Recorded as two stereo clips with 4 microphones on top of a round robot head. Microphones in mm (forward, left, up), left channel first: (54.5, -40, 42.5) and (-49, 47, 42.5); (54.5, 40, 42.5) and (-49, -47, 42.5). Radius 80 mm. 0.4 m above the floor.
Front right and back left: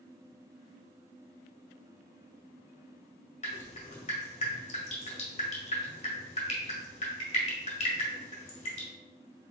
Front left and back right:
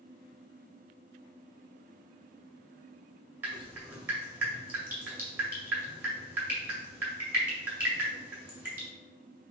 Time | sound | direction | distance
3.4 | dripping | 70° right | 1.7 m